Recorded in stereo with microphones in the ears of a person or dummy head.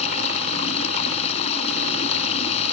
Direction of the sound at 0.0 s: 30° left (ahead or behind).